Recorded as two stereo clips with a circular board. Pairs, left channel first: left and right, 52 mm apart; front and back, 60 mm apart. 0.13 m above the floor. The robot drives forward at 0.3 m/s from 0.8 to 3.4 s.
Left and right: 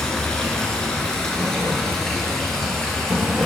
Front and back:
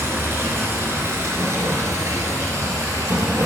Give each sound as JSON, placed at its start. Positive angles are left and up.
{"t": 0.0, "sound": "running water", "azimuth_deg": 160, "distance_m": 1.3}